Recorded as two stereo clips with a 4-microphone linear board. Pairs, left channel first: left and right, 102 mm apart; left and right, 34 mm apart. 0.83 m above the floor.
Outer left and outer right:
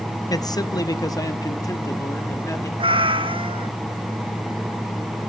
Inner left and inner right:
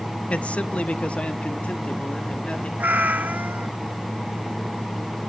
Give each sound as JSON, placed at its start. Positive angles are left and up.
{"t": 0.3, "sound": "a man speaking", "side_deg": 35, "distance_m": 0.7}
{"t": 2.8, "sound": "a cat meowing", "side_deg": -55, "distance_m": 0.7}